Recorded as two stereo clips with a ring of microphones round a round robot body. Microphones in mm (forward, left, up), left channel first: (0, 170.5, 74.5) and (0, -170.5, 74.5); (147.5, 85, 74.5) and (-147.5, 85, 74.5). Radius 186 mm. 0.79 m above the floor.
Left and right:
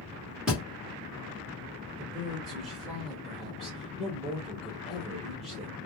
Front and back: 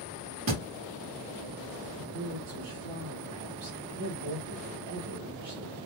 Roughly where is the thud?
Behind.